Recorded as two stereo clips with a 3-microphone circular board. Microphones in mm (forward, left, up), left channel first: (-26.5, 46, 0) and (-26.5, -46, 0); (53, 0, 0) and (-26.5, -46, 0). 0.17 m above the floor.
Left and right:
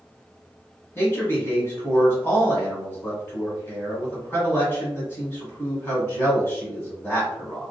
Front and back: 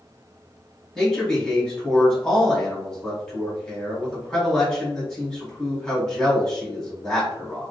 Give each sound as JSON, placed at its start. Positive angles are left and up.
{"t": 0.9, "sound": "a man speaking", "azimuth_deg": 100, "distance_m": 1.3}